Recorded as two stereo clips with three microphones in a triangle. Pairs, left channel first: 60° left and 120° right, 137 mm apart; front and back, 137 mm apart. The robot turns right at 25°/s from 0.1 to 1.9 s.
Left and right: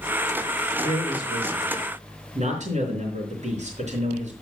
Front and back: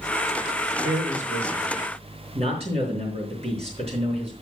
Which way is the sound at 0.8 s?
170° right.